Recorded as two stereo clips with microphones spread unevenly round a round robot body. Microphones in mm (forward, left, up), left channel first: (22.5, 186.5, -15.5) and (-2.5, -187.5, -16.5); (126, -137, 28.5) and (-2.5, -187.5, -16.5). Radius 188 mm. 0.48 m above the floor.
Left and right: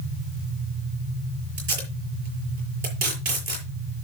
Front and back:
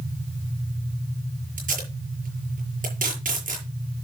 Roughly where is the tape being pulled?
Behind right.